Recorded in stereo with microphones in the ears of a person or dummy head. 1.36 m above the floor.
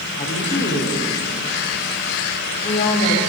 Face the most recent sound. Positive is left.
turn(degrees=30)  # may be behind; listen again after turning